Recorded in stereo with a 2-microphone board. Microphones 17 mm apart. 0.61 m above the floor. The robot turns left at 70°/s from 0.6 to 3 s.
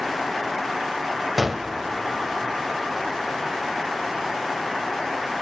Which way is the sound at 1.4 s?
5° right (ahead or behind).